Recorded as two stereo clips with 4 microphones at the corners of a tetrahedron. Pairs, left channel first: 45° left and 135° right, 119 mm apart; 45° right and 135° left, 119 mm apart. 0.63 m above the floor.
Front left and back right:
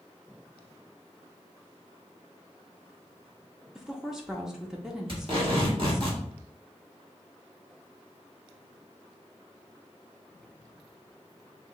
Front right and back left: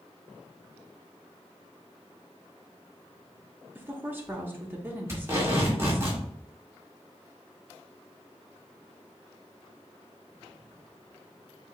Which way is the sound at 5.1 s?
165° right.